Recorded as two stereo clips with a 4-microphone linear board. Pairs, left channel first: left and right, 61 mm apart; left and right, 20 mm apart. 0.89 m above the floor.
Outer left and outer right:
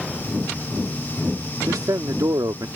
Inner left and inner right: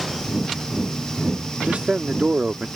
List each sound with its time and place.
1.7 s a man speaking: 80° right